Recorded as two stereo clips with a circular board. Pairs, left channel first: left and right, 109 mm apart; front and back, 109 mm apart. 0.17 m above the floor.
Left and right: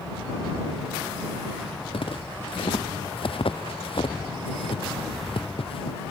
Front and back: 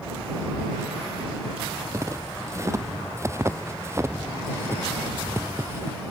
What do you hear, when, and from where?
1.9 s footsteps: 120° left; by 6.0 s 115° left